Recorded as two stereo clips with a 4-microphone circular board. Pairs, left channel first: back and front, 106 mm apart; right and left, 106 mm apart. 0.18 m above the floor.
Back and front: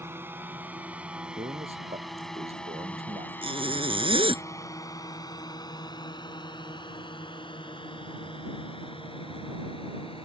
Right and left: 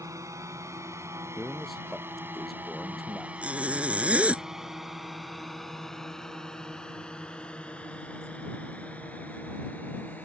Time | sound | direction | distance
0.0 | a drone | 55° left | ?
1.4 | a man speaking | straight ahead | ?
3.4 | a zipper | 15° left | ?